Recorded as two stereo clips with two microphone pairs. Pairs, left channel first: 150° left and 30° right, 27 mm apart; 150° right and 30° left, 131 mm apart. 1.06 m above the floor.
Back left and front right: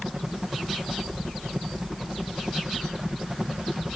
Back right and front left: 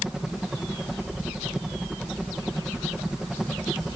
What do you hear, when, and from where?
0.0 s a helicopter: 50° right